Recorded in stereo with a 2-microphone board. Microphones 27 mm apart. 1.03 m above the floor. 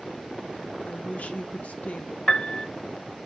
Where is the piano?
30° left (ahead or behind), 0.8 m.